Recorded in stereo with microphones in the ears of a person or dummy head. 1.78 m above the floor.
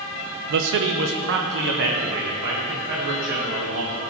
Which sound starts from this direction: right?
A man speaking, at 0.5 s.